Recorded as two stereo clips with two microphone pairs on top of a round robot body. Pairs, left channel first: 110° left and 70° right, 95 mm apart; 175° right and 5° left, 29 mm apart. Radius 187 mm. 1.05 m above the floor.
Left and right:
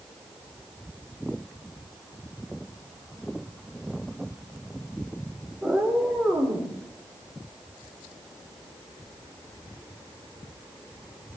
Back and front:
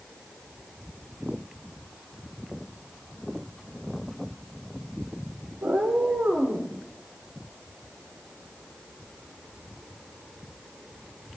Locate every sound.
5.6 s a cat meowing: 15° left, 1.4 m; by 6.7 s 5° left, 3 m